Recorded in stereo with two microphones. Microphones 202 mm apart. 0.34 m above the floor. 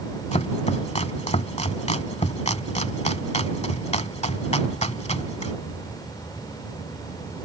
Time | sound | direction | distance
0.3 | chopping | 35° left (ahead or behind) | ?